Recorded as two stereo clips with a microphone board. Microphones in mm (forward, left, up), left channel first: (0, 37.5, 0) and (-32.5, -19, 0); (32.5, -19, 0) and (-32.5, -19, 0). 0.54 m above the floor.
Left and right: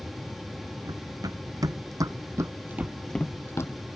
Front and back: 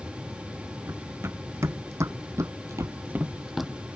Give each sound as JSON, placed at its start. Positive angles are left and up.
{"t": 0.8, "sound": "running footsteps", "azimuth_deg": -130}